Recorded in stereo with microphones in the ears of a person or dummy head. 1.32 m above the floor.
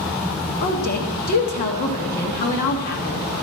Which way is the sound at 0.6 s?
50° left (ahead or behind).